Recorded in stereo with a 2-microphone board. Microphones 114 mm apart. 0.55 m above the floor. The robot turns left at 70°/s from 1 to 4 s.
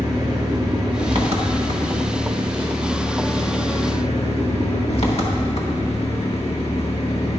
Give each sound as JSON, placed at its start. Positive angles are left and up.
{"t": 0.0, "sound": "an engine running", "azimuth_deg": -40, "distance_m": 0.9}